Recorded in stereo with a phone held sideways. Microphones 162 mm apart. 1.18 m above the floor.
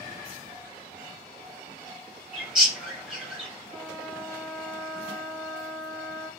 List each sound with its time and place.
2.3 s a bird: 5° right (ahead or behind), 1.0 m
3.7 s a trumpet: 5° left (ahead or behind), 0.7 m